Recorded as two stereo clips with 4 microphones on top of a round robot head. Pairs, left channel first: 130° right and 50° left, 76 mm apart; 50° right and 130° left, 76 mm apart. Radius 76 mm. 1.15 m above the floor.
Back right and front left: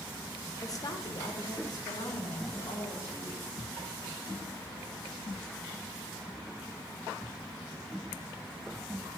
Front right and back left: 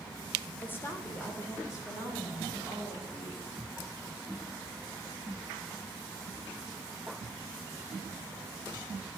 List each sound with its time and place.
0.6 s a woman speaking: 110° right, 0.9 m; by 3.5 s 95° right, 4.5 m